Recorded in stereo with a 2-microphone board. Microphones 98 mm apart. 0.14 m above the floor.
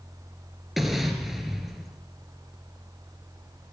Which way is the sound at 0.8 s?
Centre (ahead or behind).